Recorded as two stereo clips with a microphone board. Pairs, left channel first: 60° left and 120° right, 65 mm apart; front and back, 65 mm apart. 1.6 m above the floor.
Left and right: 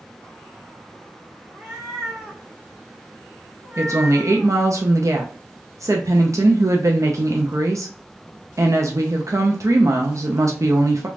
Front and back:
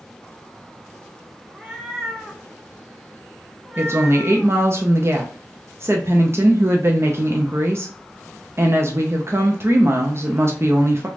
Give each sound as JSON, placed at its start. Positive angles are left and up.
{"t": 1.5, "sound": "a cat meowing", "azimuth_deg": -120, "distance_m": 1.2}
{"t": 3.8, "sound": "a woman speaking", "azimuth_deg": -140, "distance_m": 0.5}